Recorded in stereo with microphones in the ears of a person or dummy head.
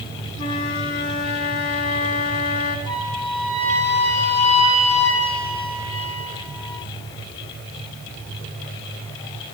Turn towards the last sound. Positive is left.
turn(degrees=25)  # may be behind; listen again after turning